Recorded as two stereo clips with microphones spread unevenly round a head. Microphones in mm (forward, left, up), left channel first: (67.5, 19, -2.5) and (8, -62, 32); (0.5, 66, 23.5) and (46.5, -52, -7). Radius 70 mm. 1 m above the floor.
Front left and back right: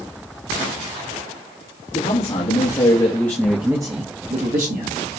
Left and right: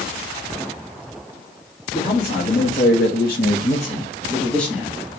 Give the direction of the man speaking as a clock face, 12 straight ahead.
9 o'clock.